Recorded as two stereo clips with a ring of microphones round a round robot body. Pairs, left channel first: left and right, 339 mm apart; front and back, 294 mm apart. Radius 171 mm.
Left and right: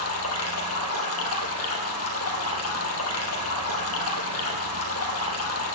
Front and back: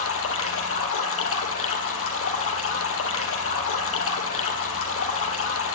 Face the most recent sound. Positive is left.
turn(degrees=40)